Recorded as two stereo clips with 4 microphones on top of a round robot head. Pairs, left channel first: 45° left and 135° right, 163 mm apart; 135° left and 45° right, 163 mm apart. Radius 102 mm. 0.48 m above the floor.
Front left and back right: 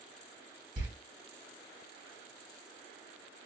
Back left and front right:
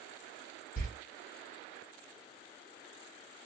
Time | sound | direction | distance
0.8 | a door slam | 170° left | 2 m